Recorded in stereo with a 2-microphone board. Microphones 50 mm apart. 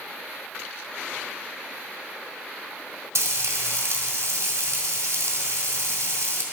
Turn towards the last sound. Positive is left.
turn(degrees=-75)  # may be behind; listen again after turning